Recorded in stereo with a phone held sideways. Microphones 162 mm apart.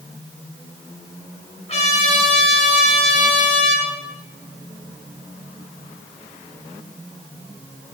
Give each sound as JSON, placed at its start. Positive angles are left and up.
{"t": 1.7, "sound": "a trumpet", "side_deg": 40, "distance_m": 2.5}